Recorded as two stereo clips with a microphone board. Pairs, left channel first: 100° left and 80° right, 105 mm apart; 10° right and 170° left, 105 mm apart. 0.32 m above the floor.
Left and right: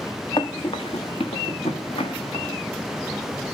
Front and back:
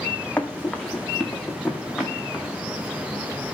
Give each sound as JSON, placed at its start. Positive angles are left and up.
{"t": 0.4, "sound": "running footsteps", "azimuth_deg": 65, "distance_m": 1.2}